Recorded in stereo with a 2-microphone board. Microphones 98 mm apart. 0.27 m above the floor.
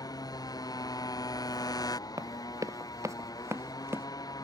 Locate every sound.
0.0 s a motorcycle: 40° left (ahead or behind)
2.2 s running footsteps: 40° right (ahead or behind); by 4.1 s 25° right (ahead or behind)